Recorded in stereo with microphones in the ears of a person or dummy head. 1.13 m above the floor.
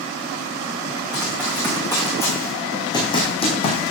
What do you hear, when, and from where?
1.1 s running footsteps: 5° left (ahead or behind), 4 m; by 3.9 s 30° left (ahead or behind), 2.5 m